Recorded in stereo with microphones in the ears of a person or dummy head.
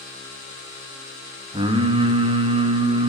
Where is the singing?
20° right (ahead or behind), 1.4 m.